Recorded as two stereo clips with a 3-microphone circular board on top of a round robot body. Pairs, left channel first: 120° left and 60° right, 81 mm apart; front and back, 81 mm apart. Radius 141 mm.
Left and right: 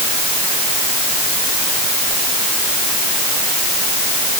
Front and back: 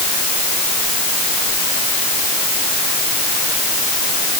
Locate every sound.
Only background noise.